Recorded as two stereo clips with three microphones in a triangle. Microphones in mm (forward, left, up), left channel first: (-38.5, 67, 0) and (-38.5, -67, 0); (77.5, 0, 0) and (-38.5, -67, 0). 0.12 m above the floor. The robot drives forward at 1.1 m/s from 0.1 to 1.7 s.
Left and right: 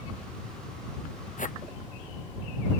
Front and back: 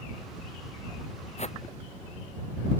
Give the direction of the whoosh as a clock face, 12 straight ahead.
10 o'clock.